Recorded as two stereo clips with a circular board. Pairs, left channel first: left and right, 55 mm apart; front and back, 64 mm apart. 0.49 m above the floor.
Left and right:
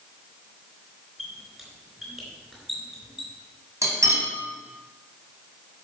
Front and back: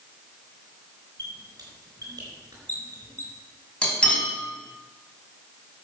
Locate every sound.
1.2 s a squeak: 170° right, 4 m
3.8 s cutlery clinking: 70° right, 2.5 m